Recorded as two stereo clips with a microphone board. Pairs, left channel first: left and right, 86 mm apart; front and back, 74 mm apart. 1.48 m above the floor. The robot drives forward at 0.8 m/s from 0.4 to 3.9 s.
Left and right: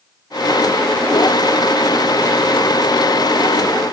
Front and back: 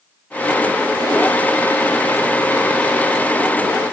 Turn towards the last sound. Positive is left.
No sound to turn to.